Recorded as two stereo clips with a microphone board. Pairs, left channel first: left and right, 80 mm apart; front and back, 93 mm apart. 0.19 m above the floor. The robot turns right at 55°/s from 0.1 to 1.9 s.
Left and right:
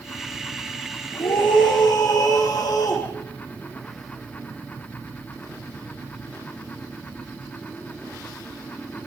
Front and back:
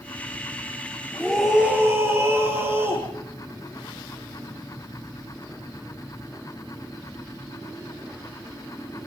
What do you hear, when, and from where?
1.1 s a scream: 80° left, 7.5 m; by 3.1 s 120° left, 7.5 m